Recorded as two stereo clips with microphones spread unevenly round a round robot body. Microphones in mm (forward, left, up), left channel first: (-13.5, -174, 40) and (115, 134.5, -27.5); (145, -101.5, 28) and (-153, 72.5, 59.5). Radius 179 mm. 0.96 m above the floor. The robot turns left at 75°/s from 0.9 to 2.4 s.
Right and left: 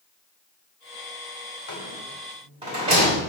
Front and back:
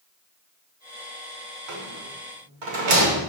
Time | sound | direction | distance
1.7 | a rattle | 165° right | 2.5 m